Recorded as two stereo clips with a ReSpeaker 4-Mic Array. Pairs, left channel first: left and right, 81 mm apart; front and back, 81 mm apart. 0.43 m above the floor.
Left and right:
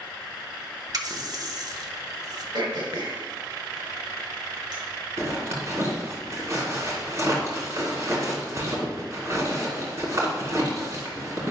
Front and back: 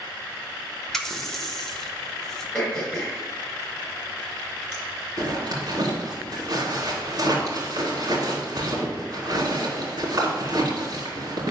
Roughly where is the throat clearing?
Right.